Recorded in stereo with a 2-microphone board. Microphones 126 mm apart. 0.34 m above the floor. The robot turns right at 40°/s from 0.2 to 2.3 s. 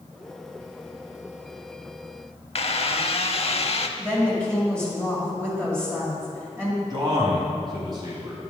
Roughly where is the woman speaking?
Right.